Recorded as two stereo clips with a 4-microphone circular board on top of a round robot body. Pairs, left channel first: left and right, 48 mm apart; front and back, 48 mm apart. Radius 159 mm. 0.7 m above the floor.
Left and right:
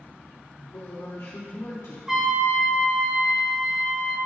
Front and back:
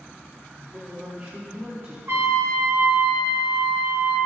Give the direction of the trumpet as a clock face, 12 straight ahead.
6 o'clock.